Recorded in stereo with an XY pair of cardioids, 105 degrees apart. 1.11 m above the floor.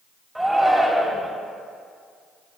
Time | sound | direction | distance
0.3 | a shout | 5° right | 2 m